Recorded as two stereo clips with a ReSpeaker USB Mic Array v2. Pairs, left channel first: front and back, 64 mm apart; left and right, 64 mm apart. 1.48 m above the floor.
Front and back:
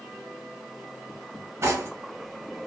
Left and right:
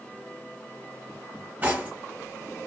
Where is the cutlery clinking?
145° right, 0.9 m.